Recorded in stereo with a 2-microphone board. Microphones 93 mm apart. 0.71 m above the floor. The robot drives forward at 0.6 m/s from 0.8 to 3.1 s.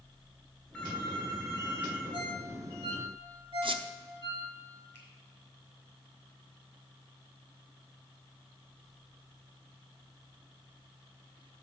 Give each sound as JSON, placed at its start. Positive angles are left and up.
{"t": 0.7, "sound": "a phone ringing", "side_deg": 15, "distance_m": 2.5}
{"t": 2.1, "sound": "a ringtone", "side_deg": -70, "distance_m": 1.9}
{"t": 3.6, "sound": "a squeak", "side_deg": -65, "distance_m": 0.5}
{"t": 4.9, "sound": "a finger snap", "side_deg": 20, "distance_m": 3.5}